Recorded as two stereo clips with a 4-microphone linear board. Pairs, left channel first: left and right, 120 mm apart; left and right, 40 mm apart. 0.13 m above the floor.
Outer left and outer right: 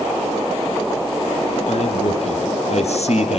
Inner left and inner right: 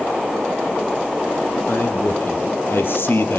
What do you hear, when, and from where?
1.7 s a man speaking: 65° left (ahead or behind), 5.5 m